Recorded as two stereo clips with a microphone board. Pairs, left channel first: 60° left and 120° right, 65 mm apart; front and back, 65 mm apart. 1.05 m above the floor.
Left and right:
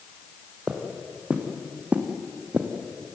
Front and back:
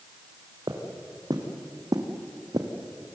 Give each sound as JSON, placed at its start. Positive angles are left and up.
{"t": 0.7, "sound": "footsteps", "azimuth_deg": 165, "distance_m": 3.5}